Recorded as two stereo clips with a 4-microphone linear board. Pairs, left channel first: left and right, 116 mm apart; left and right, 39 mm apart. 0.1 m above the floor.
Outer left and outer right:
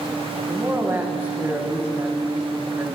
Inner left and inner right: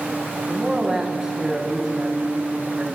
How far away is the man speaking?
About 7 m.